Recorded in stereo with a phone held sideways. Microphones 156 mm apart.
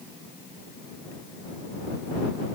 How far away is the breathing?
No breathing in this recording.